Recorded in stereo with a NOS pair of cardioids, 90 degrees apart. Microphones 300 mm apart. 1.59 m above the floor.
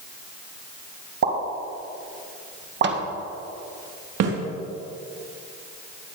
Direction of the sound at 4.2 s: 65° right.